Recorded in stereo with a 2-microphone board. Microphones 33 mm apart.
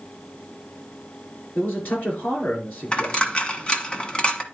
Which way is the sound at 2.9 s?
30° left (ahead or behind).